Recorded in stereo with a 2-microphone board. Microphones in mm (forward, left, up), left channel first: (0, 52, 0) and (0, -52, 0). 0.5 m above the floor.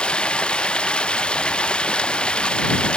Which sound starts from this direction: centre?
Running water, at 0.0 s.